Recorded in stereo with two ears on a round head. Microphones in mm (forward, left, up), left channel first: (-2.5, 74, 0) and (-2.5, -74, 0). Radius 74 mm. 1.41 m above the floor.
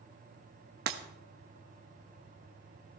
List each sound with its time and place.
0.9 s breaking glass: 65° right (ahead or behind), 1.2 m